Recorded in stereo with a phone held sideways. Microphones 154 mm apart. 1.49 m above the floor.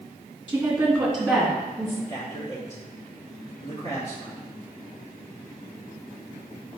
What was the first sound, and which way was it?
A woman speaking, 15° right (ahead or behind).